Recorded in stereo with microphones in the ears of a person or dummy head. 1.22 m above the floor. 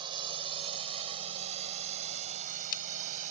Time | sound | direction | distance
0.0 | a drone | 25° right (ahead or behind) | ?